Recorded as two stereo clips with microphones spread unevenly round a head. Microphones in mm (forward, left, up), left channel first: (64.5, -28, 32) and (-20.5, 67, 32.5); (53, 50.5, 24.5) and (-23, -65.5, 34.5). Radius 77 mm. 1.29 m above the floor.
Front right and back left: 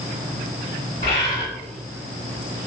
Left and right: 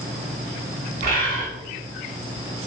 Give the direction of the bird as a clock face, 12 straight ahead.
4 o'clock.